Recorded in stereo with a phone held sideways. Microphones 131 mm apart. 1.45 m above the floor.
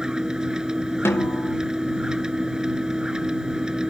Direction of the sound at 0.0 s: 5° right (ahead or behind).